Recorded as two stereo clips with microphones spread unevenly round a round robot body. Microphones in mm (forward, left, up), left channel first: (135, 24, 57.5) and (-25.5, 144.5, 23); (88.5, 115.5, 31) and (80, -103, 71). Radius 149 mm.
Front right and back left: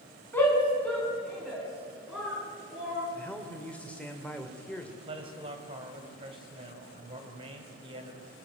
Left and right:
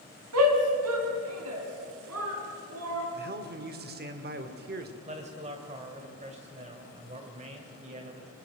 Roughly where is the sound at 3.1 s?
Behind right.